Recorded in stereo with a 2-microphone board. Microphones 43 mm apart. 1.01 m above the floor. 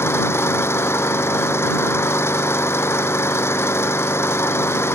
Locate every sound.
0.0 s an engine running: 75° left (ahead or behind)